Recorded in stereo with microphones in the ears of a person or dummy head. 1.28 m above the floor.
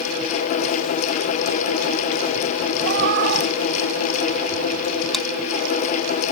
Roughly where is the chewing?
Centre.